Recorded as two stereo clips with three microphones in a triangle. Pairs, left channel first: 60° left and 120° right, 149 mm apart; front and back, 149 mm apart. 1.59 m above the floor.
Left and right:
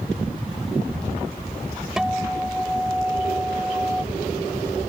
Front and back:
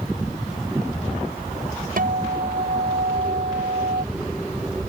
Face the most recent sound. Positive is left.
turn(degrees=155)